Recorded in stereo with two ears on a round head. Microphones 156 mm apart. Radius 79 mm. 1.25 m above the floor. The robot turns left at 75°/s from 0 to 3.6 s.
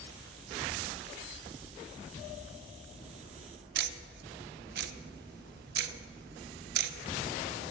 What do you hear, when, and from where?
3.8 s ticking: 65° right (ahead or behind), 0.6 m